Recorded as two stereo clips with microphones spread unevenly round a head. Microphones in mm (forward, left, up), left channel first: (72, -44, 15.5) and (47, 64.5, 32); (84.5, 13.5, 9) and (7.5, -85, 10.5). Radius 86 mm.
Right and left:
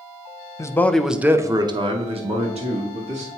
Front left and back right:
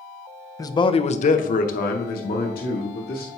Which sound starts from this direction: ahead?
A man speaking, at 0.6 s.